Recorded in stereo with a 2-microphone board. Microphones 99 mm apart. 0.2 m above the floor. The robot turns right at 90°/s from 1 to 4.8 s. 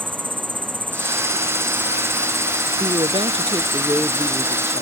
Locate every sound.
0.0 s an insect: 125° right; by 4.8 s 140° right
2.8 s a woman speaking: 120° right; by 4.8 s 60° left